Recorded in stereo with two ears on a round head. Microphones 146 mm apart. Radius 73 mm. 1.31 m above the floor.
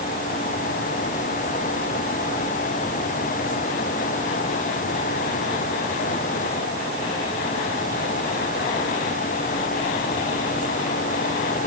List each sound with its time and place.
Only background noise.